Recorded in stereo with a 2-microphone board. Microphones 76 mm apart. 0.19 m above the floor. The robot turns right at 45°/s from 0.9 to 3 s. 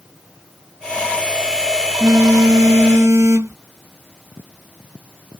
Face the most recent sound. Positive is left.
turn(degrees=75)  # may be behind; listen again after turning